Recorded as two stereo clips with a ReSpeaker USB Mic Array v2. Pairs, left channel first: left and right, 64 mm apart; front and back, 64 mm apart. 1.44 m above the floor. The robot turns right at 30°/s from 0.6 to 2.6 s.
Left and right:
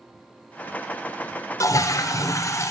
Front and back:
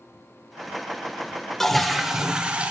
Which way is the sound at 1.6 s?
80° left.